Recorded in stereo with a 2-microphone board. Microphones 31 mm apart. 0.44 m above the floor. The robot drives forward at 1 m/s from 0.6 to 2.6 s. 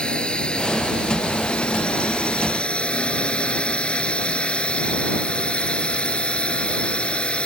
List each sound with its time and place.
0.0 s a drone: 35° left (ahead or behind); by 7.5 s 40° left (ahead or behind)